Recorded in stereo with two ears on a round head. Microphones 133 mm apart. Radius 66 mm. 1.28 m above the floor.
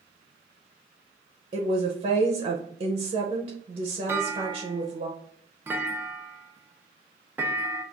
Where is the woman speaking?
35° right (ahead or behind), 0.6 m.